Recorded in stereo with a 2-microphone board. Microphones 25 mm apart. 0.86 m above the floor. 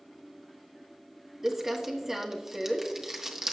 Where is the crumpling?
15° right (ahead or behind), 1.4 m.